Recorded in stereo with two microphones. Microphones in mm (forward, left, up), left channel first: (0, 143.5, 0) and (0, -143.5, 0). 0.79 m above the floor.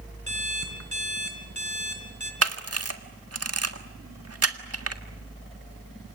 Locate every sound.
0.3 s an alarm clock: 70° left (ahead or behind), 4 m
2.4 s a camera shutter: 55° right (ahead or behind), 1.7 m